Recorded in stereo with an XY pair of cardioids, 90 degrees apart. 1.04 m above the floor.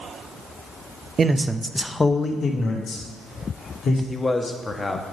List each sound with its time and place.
1.2 s a man speaking: 45° right, 0.7 m; by 4.0 s 70° left, 2 m
4.1 s a man speaking: 30° left, 1.2 m